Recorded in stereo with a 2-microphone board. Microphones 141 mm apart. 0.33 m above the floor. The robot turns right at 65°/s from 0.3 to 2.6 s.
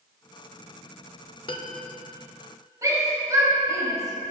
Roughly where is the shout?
Right.